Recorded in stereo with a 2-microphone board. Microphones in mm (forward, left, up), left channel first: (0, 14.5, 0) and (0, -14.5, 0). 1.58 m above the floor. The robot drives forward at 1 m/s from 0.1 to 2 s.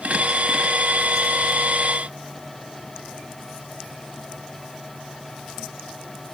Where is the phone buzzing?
I don't hear a phone buzzing.